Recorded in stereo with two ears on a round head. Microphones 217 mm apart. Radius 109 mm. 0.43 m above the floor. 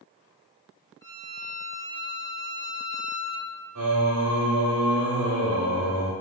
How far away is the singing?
About 1.6 m.